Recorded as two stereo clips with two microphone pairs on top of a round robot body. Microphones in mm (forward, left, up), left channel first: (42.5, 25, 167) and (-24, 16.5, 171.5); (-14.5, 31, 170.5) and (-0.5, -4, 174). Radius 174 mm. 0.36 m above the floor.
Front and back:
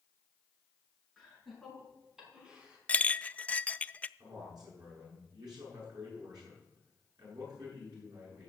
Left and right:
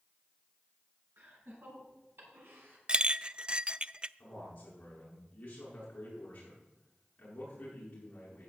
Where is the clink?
20° right, 0.5 m.